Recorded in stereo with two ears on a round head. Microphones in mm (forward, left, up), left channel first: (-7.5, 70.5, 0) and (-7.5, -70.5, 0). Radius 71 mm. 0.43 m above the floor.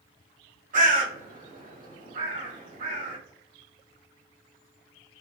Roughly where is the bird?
Right.